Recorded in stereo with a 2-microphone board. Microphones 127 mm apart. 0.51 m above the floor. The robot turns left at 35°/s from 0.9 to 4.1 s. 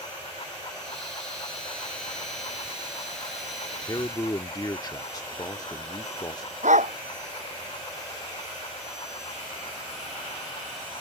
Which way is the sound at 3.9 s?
35° left (ahead or behind).